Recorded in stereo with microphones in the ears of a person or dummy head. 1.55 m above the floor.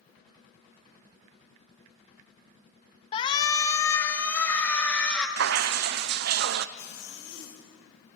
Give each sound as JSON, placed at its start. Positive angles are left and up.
{"t": 3.1, "sound": "a shout", "side_deg": 30, "distance_m": 1.2}
{"t": 5.4, "sound": "dripping", "side_deg": -65, "distance_m": 0.6}
{"t": 6.8, "sound": "a zipper", "side_deg": 65, "distance_m": 4.0}